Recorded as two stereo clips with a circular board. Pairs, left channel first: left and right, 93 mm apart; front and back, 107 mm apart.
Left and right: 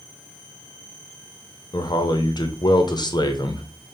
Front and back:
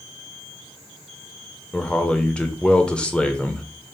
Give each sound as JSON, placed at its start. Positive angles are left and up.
{"t": 1.7, "sound": "a man speaking", "azimuth_deg": 75, "distance_m": 0.6}